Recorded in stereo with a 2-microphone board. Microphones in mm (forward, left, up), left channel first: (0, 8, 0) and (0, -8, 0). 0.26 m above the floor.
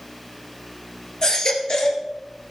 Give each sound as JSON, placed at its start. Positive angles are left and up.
{"t": 1.2, "sound": "a baby crying", "side_deg": 50, "distance_m": 2.5}